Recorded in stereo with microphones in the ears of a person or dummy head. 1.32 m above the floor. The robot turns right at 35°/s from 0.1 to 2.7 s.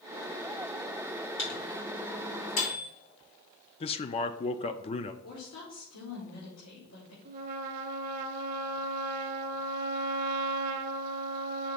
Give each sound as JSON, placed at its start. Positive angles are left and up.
{"t": 1.4, "sound": "a microwave", "side_deg": 65, "distance_m": 3.0}
{"t": 3.8, "sound": "a man speaking", "side_deg": 25, "distance_m": 0.5}
{"t": 5.2, "sound": "a woman speaking", "side_deg": 85, "distance_m": 3.0}
{"t": 7.2, "sound": "a trumpet", "side_deg": -45, "distance_m": 0.7}